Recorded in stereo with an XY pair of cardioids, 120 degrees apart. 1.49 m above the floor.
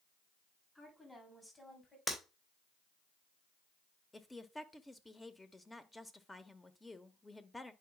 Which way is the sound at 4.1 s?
15° left.